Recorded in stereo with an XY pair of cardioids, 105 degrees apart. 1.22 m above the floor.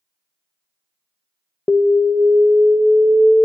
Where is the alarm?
15° left, 0.7 m.